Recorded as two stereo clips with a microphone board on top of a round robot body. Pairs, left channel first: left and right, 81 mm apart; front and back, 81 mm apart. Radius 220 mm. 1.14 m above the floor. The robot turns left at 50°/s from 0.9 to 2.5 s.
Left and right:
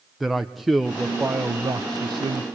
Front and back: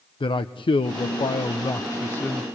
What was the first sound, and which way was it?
A man speaking, straight ahead.